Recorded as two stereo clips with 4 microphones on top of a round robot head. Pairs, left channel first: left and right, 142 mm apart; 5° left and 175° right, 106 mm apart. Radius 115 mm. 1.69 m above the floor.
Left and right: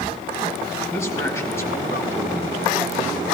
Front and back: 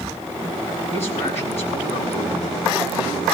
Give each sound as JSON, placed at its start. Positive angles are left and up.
{"t": 0.9, "sound": "a man speaking", "azimuth_deg": 20, "distance_m": 4.5}